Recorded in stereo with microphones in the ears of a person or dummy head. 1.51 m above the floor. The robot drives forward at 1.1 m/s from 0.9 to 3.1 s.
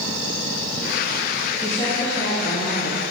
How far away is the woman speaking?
About 2 m.